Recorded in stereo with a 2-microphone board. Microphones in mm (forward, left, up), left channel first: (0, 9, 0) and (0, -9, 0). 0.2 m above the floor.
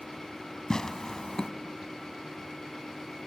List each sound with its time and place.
0.7 s tearing paper: 35° left (ahead or behind), 0.7 m